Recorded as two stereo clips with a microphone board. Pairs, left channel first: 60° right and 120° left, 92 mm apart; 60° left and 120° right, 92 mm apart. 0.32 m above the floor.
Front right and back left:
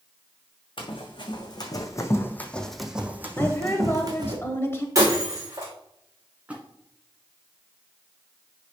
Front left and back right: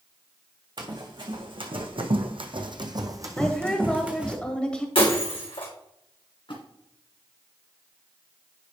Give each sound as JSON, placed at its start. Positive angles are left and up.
{"t": 0.8, "sound": "running footsteps", "azimuth_deg": -85, "distance_m": 1.6}
{"t": 3.4, "sound": "a woman speaking", "azimuth_deg": -15, "distance_m": 1.1}
{"t": 5.0, "sound": "breaking glass", "azimuth_deg": 70, "distance_m": 3.0}
{"t": 6.5, "sound": "a splash", "azimuth_deg": 45, "distance_m": 1.9}